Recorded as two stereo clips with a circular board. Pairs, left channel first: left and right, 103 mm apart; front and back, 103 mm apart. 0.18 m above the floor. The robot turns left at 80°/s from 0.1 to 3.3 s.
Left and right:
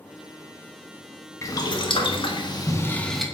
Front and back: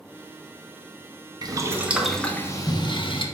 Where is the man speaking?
No man speaking in this recording.